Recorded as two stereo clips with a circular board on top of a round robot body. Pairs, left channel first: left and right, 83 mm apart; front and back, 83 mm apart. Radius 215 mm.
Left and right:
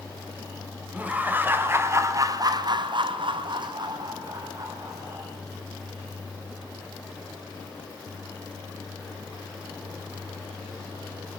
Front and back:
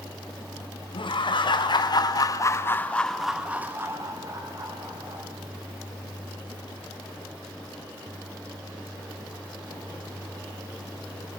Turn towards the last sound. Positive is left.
turn(degrees=-145)